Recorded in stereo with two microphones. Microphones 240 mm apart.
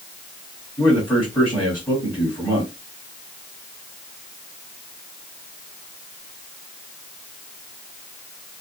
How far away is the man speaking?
About 4 m.